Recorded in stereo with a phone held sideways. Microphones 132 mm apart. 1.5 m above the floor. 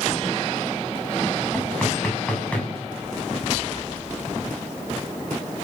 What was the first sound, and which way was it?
Knocking, 10° left (ahead or behind).